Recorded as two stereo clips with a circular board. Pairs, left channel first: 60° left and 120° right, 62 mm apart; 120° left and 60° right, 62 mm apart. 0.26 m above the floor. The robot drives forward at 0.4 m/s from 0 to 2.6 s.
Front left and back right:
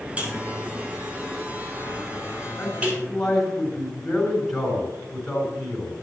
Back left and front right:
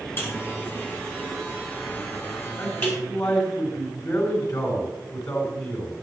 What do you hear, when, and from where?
0.2 s a buzzer: 175° left, 5 m
2.6 s a man speaking: 140° left, 4 m